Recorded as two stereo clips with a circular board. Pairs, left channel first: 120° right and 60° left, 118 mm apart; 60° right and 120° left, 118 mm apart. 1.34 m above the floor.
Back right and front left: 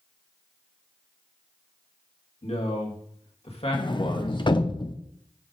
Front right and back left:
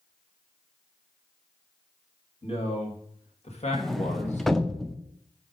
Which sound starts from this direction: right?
A man speaking, at 2.4 s.